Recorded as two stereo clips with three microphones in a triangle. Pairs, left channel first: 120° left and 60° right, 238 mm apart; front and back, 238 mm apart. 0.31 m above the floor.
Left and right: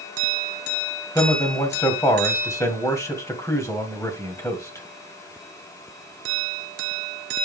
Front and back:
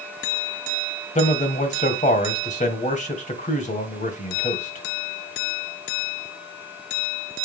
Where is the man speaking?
45° left, 1.7 m.